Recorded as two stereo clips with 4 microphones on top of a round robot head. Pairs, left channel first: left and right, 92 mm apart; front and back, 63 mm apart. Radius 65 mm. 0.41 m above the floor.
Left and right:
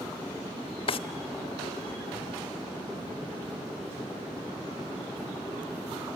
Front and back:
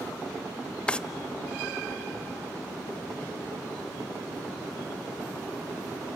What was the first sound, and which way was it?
A drawer, 75° left.